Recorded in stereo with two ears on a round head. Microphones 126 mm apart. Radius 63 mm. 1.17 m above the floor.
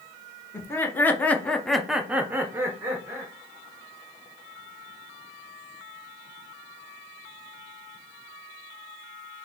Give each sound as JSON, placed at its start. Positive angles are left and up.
{"t": 0.5, "sound": "laughter", "side_deg": 15, "distance_m": 1.0}